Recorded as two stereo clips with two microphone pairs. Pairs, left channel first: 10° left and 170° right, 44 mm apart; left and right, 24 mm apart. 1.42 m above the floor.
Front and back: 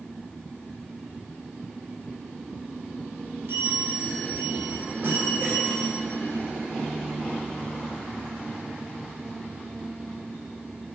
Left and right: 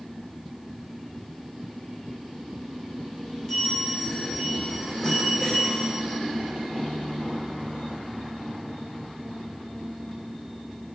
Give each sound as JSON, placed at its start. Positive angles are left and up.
{"t": 3.5, "sound": "a bell", "azimuth_deg": 155, "distance_m": 2.5}